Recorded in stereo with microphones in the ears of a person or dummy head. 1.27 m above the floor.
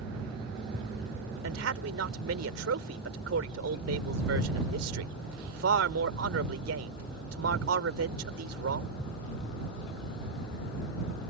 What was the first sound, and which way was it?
A man speaking, 80° right.